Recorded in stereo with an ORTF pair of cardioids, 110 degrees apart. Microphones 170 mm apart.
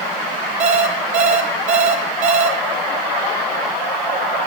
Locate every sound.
0.6 s an alarm clock: 40° right, 2.5 m